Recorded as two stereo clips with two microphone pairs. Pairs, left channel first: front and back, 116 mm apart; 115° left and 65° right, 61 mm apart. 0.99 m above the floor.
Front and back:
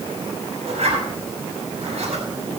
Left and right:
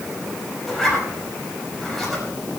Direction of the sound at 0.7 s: 160° right.